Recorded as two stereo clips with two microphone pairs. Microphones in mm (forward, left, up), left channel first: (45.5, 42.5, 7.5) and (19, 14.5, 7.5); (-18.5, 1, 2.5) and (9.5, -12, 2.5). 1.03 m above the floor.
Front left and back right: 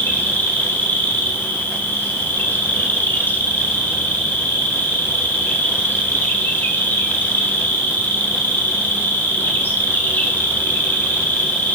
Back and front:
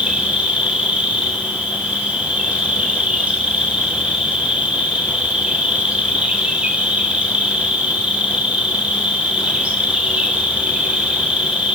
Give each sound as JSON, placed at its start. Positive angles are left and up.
{"t": 0.0, "sound": "an insect", "azimuth_deg": 20, "distance_m": 1.6}